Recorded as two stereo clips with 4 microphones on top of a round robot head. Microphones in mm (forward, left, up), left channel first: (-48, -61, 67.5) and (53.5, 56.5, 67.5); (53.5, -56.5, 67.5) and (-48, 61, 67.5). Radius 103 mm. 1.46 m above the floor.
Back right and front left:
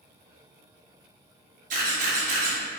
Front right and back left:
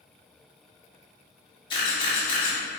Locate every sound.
1.7 s a camera shutter: 10° left, 1.8 m